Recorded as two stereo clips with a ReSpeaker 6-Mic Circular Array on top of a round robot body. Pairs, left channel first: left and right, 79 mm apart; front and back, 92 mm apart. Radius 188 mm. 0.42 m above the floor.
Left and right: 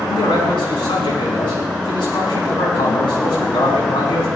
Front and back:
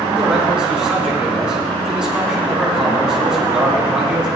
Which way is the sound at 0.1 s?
100° left.